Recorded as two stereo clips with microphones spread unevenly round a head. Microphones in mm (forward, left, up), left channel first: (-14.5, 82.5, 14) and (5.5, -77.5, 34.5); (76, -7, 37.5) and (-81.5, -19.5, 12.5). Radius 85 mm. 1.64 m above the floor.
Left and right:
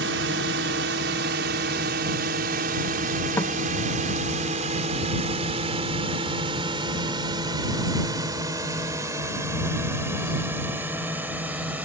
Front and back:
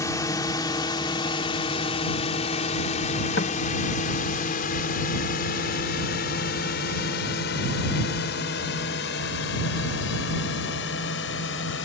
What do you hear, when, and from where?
0.0 s a drone: 65° right; by 11.8 s 5° right
3.4 s knocking: 20° left